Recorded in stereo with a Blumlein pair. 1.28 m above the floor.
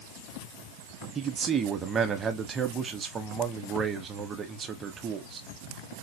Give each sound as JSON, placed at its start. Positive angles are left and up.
{"t": 1.1, "sound": "a man speaking", "azimuth_deg": -20, "distance_m": 1.2}